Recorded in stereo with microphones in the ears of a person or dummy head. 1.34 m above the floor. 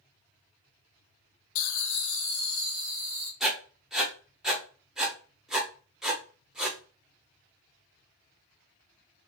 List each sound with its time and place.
1.6 s laughter: 75° left (ahead or behind), 0.6 m; by 3.3 s 40° left (ahead or behind), 2 m
3.4 s writing: 5° right (ahead or behind), 0.7 m